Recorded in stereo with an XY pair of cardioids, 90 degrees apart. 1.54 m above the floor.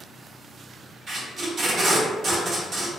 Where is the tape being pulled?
60° right, 1.2 m.